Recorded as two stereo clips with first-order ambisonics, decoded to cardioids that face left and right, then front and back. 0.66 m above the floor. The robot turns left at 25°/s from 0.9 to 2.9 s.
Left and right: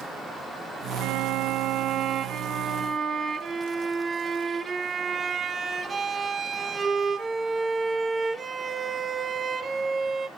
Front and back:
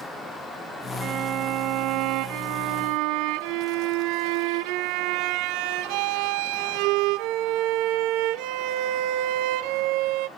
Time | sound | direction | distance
1.0 | a violin | 115° right | 0.7 m